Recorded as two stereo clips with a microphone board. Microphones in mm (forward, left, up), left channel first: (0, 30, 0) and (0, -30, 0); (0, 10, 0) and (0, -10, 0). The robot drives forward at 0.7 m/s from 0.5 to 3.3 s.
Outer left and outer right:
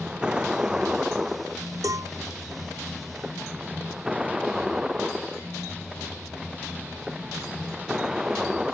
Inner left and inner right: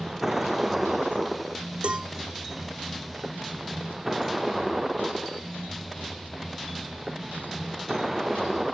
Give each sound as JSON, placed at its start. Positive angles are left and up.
{"t": 0.0, "sound": "a vehicle", "side_deg": -15}
{"t": 1.8, "sound": "a cowbell", "side_deg": -70}